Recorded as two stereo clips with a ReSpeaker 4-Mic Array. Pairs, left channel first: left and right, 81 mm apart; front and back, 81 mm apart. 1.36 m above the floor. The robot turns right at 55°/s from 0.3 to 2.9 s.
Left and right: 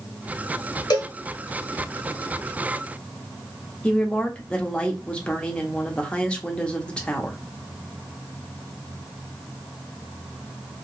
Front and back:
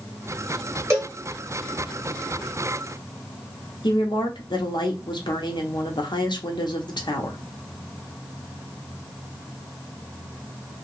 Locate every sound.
0.9 s a cowbell: 125° left, 1.3 m; by 1.1 s 140° left, 1.3 m
3.8 s a woman speaking: 15° left, 0.9 m